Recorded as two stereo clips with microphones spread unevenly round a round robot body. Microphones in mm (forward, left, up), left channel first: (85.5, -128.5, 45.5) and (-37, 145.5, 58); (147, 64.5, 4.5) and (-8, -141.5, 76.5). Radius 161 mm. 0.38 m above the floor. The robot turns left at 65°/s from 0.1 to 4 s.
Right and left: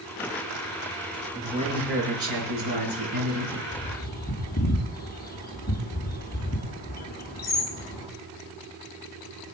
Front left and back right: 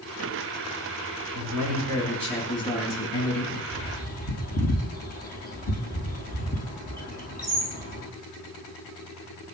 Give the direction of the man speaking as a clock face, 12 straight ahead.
5 o'clock.